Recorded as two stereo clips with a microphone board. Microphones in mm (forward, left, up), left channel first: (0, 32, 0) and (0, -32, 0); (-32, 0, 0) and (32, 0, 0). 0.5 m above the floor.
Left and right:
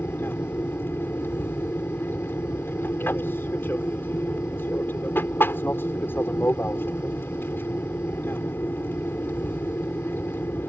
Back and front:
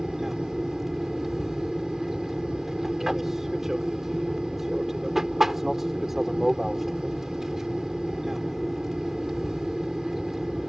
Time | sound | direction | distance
0.0 | an aircraft | 80° left | ?